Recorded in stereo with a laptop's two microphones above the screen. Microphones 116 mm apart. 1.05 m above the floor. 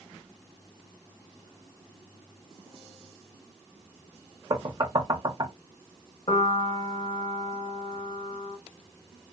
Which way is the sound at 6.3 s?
55° left (ahead or behind).